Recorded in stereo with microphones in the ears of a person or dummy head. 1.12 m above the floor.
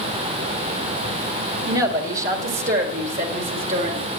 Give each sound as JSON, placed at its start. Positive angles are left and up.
{"t": 1.7, "sound": "a woman speaking", "side_deg": -60, "distance_m": 1.4}